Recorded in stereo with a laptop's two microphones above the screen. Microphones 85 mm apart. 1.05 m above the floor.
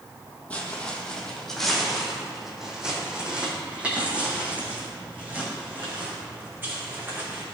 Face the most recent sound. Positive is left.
turn(degrees=-30)  # may be behind; listen again after turning